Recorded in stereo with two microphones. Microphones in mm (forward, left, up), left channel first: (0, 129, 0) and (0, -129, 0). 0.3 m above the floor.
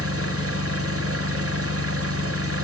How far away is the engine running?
About 1.0 m.